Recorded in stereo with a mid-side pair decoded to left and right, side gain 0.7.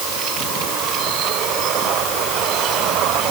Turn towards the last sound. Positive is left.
No sound to turn to.